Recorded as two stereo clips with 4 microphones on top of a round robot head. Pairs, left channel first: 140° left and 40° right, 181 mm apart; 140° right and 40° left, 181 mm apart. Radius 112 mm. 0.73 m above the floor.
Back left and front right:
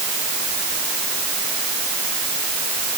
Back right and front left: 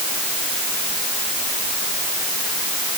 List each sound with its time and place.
Only background noise.